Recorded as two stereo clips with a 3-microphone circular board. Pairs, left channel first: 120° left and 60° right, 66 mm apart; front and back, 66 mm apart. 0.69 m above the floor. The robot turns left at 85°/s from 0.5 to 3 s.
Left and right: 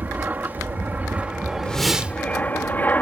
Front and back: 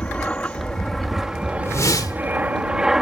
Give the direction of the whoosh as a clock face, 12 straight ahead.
10 o'clock.